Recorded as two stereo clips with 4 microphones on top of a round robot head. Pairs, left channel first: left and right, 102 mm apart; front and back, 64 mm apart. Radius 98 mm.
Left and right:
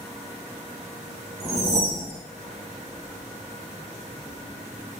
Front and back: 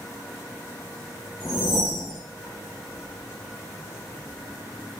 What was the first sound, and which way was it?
A whoosh, 95° right.